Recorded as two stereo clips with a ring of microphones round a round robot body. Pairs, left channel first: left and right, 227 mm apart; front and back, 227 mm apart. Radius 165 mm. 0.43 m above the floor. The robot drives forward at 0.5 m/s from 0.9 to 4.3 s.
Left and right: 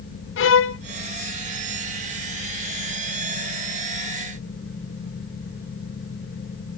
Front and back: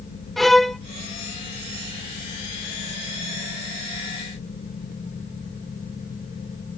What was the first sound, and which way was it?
A violin, 90° left.